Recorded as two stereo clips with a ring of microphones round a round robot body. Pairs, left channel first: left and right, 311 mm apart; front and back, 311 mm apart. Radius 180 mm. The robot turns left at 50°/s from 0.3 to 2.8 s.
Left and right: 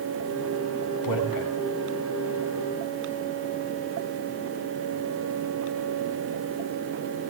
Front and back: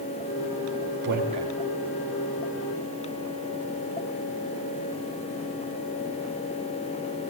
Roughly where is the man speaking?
Behind left.